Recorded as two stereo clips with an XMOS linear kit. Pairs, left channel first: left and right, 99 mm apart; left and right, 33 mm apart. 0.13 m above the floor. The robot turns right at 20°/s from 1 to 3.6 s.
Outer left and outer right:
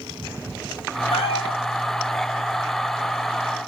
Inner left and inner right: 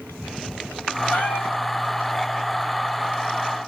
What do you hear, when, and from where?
1.1 s a cat meowing: 70° left (ahead or behind), 3 m; by 1.6 s 65° left (ahead or behind), 3 m